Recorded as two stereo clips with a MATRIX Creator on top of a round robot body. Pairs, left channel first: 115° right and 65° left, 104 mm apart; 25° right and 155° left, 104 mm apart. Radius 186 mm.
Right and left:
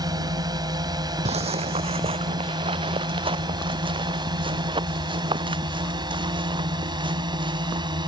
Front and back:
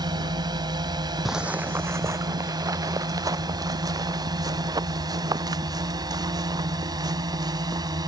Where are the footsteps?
70° left; by 8.1 s 105° left.